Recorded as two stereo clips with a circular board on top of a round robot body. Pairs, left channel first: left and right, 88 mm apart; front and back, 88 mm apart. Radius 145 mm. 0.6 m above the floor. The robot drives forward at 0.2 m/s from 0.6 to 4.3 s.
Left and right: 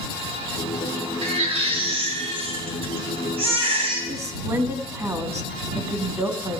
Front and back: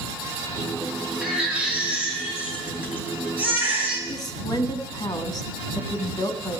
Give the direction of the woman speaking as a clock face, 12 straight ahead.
1 o'clock.